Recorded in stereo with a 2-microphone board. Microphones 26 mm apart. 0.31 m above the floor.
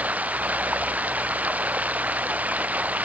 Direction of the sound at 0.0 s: 80° right.